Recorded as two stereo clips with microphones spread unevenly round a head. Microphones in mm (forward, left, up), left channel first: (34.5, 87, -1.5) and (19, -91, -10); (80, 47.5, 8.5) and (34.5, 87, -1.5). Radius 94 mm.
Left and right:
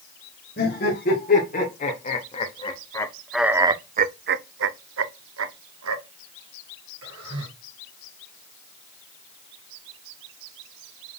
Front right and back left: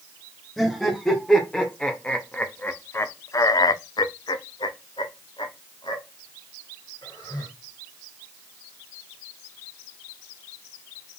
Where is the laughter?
40° left, 2.5 m; by 7.5 s 110° right, 2.5 m.